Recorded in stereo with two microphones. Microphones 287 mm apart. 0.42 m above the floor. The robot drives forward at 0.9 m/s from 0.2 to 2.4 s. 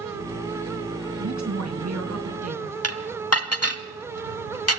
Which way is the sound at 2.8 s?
55° left (ahead or behind).